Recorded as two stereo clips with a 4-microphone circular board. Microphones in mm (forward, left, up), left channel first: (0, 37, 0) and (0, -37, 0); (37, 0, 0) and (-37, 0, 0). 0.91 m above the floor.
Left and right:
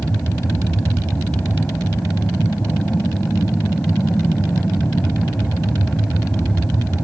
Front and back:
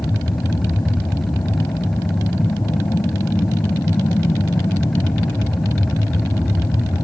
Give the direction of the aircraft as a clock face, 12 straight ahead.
11 o'clock.